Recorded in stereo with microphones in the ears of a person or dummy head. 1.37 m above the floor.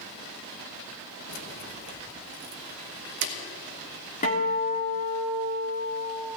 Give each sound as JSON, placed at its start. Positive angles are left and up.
{"t": 1.3, "sound": "keys jangling", "side_deg": 55, "distance_m": 1.2}
{"t": 4.2, "sound": "a guitar", "side_deg": 35, "distance_m": 1.7}